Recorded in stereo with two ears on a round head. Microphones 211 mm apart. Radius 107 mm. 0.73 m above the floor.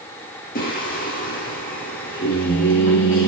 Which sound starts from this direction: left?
Singing, at 0.6 s.